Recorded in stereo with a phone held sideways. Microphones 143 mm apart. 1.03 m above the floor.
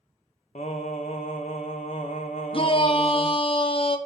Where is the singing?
60° left (ahead or behind), 0.7 m.